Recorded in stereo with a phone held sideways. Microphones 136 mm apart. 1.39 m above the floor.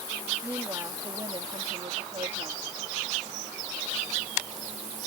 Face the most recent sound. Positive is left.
turn(degrees=-60)  # may be behind; listen again after turning